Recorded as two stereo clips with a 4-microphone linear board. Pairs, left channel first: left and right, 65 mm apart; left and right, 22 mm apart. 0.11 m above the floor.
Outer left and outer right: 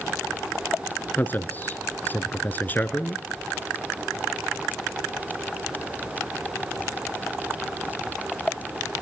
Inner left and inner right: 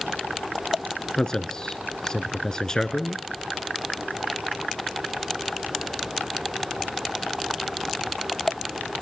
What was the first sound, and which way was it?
A man speaking, 30° left (ahead or behind).